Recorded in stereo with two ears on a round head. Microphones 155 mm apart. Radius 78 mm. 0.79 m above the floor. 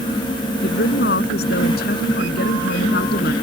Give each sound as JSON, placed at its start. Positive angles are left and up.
{"t": 0.6, "sound": "a woman speaking", "side_deg": 65}